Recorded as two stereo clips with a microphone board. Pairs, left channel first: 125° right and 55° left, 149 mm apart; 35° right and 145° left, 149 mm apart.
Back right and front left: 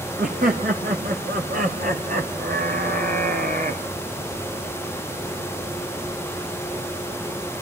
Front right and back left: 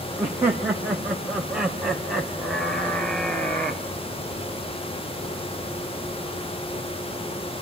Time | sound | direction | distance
0.2 | laughter | 75° left | 3.5 m